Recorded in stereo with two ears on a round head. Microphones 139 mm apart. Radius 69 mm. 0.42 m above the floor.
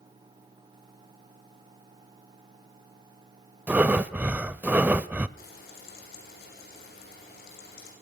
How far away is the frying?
About 6.5 m.